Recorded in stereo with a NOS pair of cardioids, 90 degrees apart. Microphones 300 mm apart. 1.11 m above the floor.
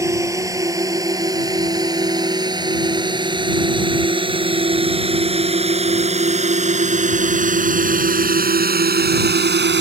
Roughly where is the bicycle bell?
I don't hear a bicycle bell.